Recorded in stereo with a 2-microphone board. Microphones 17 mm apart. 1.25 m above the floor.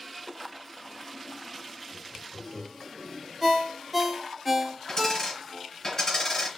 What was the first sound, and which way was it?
Laughter, 35° right (ahead or behind).